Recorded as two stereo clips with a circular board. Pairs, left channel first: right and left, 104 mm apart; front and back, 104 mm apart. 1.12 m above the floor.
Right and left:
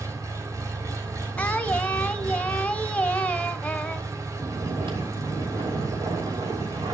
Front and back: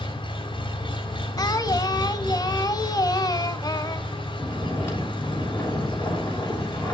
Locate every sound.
0.0 s an engine running: 35° left, 3 m
1.4 s singing: 20° right, 1.2 m
4.3 s snoring: 65° left, 6 m